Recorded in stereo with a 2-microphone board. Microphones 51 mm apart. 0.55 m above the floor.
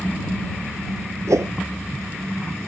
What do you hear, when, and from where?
1.3 s a whoosh: 75° right (ahead or behind)